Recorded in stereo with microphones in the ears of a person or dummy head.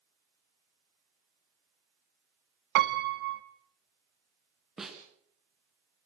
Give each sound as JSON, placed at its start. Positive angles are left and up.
{"t": 2.8, "sound": "a piano", "side_deg": -60, "distance_m": 1.6}
{"t": 4.8, "sound": "a snare drum", "side_deg": 0, "distance_m": 2.5}